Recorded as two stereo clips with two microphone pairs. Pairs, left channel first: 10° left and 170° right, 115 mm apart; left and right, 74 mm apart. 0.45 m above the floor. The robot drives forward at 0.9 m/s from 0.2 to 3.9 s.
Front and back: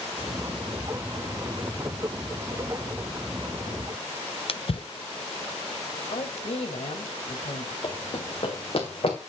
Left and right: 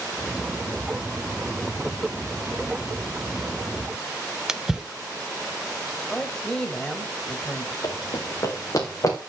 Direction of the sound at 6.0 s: 10° left.